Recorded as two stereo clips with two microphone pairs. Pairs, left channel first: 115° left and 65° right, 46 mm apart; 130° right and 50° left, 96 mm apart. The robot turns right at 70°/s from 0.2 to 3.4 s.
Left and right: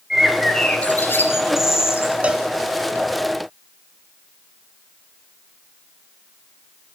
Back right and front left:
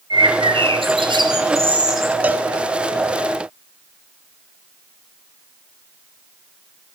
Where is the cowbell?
15° right, 0.7 m; by 2.5 s straight ahead, 0.7 m.